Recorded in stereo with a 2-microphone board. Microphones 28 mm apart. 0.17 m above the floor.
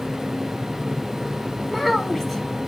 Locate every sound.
1.7 s a child speaking: centre (ahead or behind), 0.6 m